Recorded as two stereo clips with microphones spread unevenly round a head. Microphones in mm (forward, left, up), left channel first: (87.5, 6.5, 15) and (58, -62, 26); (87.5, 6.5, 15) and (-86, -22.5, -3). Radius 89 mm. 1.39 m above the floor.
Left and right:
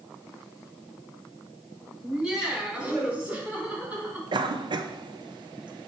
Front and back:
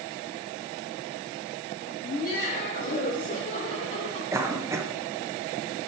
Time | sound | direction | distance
2.0 | laughter | 35° right | 4.5 m
4.3 | a cough | 95° right | 1.3 m